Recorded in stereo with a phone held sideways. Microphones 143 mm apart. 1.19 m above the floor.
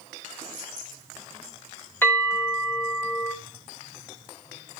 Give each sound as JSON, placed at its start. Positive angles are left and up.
{"t": 2.0, "sound": "a bell", "side_deg": 15, "distance_m": 3.0}